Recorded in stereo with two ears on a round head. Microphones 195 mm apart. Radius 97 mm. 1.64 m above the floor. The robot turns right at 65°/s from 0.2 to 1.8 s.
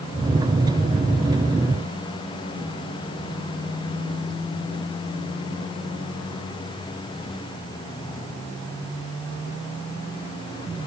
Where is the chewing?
I don't hear chewing.